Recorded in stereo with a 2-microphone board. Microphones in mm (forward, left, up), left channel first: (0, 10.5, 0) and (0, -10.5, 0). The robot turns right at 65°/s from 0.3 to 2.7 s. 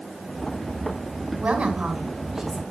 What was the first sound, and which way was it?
A woman speaking, 90° right.